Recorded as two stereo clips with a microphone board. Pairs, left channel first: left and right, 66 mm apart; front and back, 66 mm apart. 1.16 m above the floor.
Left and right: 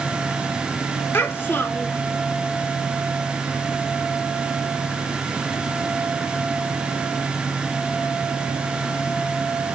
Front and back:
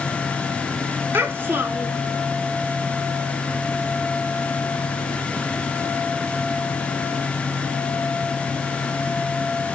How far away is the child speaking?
About 0.6 m.